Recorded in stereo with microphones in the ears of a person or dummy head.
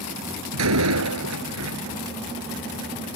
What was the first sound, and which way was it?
A door slam, 90° right.